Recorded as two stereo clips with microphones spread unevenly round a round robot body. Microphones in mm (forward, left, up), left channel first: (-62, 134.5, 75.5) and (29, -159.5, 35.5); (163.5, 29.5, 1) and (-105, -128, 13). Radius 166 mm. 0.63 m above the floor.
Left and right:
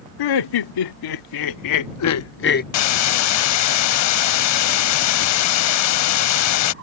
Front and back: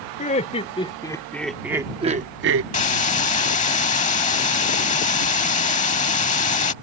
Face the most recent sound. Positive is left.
turn(degrees=95)